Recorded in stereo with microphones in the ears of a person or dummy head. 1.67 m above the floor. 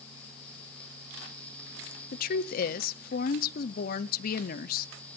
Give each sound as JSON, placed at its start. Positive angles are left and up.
{"t": 2.1, "sound": "a woman speaking", "side_deg": 50, "distance_m": 0.7}